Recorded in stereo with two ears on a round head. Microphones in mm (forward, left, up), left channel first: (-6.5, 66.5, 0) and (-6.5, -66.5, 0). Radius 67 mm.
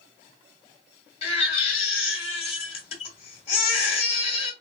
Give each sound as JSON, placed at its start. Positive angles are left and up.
{"t": 1.2, "sound": "a baby crying", "side_deg": 40, "distance_m": 1.3}